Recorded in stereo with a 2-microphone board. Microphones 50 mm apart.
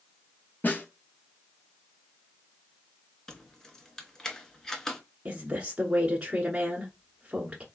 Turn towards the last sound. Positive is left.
turn(degrees=-25)  # may be behind; listen again after turning